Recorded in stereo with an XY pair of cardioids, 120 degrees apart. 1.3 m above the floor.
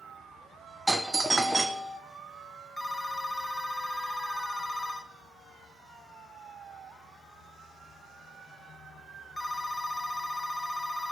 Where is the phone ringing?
10° left, 0.8 m.